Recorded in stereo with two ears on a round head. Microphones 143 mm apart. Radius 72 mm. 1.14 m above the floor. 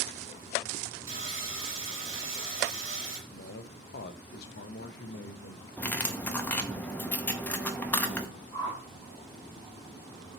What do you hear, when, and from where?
1.1 s sawing: 20° right (ahead or behind), 3.5 m
3.3 s a man speaking: 65° left (ahead or behind), 0.5 m
5.8 s cutlery clinking: 10° left (ahead or behind), 0.6 m
8.5 s a whoosh: 35° left (ahead or behind), 2.5 m